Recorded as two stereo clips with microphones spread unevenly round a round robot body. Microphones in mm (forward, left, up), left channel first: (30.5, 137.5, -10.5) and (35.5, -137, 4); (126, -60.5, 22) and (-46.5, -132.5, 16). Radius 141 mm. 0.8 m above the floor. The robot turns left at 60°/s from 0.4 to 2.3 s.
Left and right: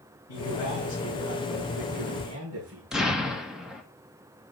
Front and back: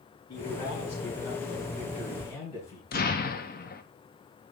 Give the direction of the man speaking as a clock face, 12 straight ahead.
9 o'clock.